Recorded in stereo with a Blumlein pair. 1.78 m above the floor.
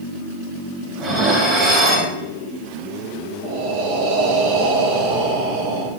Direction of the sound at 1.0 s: 25° right.